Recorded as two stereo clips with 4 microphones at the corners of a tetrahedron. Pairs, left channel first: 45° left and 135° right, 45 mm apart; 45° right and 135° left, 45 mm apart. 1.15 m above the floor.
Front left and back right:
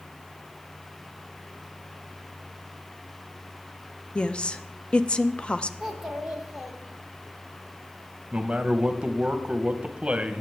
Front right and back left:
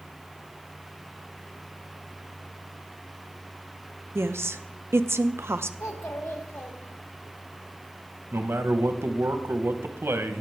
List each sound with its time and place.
4.2 s a woman speaking: 110° left, 0.6 m
5.8 s a child speaking: 55° right, 1.8 m
8.3 s a man speaking: 155° left, 1.0 m